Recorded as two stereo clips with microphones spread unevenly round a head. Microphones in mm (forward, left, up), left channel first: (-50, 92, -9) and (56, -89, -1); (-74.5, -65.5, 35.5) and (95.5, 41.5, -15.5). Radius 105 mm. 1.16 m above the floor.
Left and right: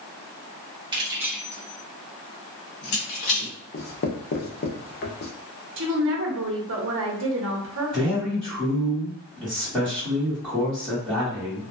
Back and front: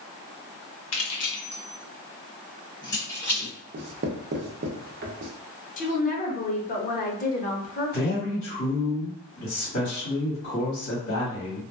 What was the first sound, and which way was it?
Keys jangling, 130° right.